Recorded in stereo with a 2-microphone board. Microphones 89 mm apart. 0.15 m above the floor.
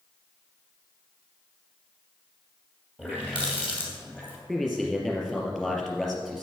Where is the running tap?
10° right (ahead or behind), 3 m.